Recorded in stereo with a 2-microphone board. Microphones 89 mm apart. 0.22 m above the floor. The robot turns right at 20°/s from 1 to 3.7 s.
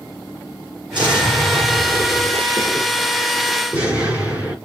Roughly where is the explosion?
Right.